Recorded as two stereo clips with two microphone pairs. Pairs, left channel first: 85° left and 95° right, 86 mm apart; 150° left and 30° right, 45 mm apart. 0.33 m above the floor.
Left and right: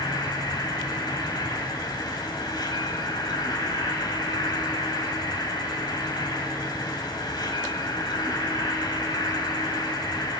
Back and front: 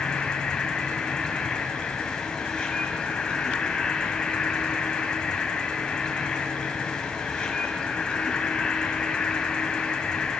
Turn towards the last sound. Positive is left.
turn(degrees=85)